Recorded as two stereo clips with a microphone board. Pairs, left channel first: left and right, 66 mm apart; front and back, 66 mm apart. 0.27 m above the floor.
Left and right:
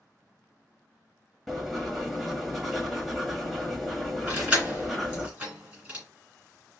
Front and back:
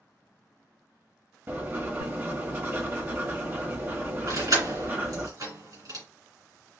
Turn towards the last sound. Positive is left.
turn(degrees=-165)